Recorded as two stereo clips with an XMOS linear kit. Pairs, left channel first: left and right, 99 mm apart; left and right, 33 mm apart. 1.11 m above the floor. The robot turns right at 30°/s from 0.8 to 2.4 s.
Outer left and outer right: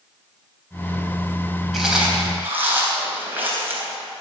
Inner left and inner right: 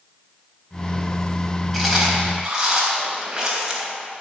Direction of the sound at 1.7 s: Centre (ahead or behind).